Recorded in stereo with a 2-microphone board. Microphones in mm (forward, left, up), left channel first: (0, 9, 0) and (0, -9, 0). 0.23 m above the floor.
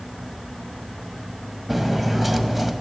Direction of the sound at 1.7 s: 5° right (ahead or behind).